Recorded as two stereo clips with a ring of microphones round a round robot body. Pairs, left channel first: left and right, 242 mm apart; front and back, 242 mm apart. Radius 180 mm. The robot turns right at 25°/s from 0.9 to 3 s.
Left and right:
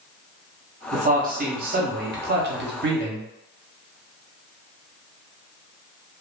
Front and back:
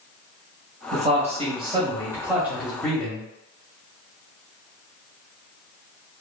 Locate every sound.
0.9 s a man speaking: 135° right, 0.7 m; by 3.3 s 85° right, 0.7 m